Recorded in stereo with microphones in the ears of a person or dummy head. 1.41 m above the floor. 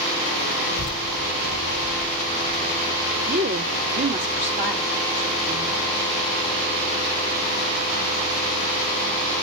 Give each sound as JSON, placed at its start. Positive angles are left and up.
{"t": 0.7, "sound": "a child speaking", "side_deg": 40, "distance_m": 0.7}
{"t": 3.3, "sound": "a woman speaking", "side_deg": -60, "distance_m": 1.7}